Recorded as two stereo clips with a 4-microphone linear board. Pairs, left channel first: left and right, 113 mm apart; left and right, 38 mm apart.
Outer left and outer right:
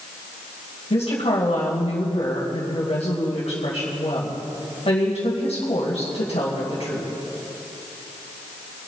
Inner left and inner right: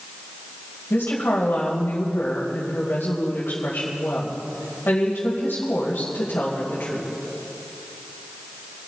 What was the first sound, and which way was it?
A woman speaking, 65° left (ahead or behind).